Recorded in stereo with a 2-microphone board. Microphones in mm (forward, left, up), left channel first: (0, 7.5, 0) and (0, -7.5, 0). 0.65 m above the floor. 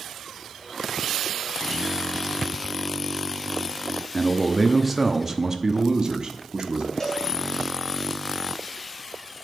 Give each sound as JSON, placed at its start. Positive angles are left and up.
{"t": 4.1, "sound": "a man speaking", "side_deg": 20, "distance_m": 0.9}
{"t": 7.0, "sound": "a cowbell", "side_deg": 30, "distance_m": 2.0}